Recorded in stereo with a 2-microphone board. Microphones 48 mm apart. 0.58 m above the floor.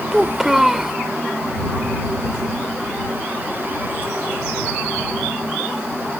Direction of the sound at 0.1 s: 5° right (ahead or behind).